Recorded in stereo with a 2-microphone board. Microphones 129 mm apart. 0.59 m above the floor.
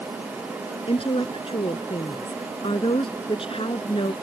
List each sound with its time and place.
0.9 s a woman speaking: 45° left (ahead or behind)